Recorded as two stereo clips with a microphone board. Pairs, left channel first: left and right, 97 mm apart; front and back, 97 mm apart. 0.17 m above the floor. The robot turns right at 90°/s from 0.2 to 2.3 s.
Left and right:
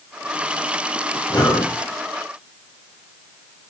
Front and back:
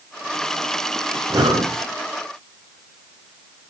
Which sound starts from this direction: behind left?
Breathing, at 1.3 s.